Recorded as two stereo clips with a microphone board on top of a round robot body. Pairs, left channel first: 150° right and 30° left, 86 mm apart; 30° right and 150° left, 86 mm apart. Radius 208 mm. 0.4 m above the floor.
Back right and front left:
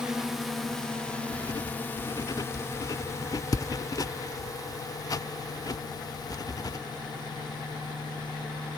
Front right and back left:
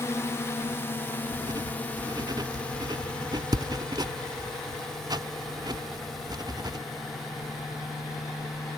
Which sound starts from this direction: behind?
Writing, at 1.3 s.